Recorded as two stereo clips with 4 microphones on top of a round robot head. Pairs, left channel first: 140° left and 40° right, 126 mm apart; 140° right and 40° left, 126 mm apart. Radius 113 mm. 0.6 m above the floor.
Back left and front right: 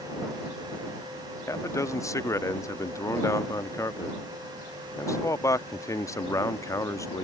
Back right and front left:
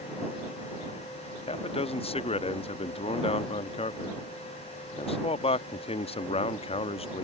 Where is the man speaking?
160° right.